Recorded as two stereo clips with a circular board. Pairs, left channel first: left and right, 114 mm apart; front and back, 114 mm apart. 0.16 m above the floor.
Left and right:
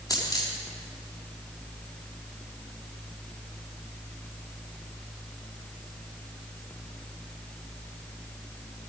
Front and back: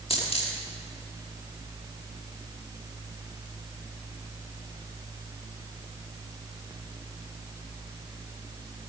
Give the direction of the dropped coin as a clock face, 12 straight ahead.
11 o'clock.